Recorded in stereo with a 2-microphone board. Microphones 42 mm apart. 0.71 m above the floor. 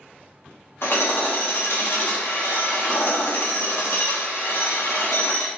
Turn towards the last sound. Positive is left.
turn(degrees=70)  # may be behind; listen again after turning